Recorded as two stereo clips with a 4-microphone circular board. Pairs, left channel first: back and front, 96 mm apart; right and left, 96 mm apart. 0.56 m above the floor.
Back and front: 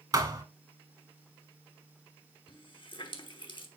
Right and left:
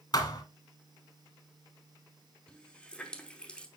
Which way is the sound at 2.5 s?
165° right.